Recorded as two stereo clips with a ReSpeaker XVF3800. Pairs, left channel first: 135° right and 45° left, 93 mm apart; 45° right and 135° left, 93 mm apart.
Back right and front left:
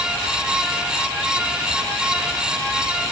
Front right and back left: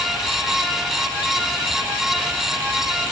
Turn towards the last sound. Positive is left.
No sound to turn to.